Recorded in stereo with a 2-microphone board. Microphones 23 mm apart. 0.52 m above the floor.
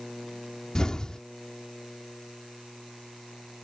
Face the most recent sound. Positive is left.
turn(degrees=30)  # may be behind; listen again after turning